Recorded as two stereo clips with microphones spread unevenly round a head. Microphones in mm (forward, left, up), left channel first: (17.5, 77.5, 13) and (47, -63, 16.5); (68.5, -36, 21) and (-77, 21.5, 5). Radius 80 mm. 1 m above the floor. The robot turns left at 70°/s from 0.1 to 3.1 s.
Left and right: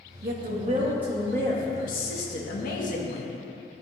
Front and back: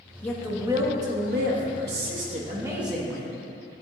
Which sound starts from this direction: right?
A woman speaking, at 0.2 s.